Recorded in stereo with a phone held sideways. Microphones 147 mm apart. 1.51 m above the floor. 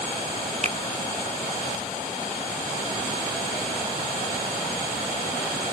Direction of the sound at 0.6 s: 45° right (ahead or behind).